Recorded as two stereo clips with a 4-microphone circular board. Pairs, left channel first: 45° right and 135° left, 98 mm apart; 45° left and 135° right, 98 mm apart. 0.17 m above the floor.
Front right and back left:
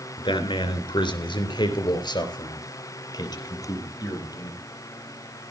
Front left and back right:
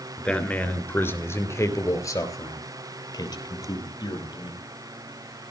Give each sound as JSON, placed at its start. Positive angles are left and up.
{"t": 0.2, "sound": "a man speaking", "azimuth_deg": -35, "distance_m": 3.0}